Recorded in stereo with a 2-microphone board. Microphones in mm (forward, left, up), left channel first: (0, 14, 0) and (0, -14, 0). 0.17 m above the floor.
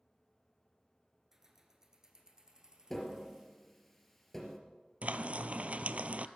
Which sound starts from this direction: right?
Frying, at 5.0 s.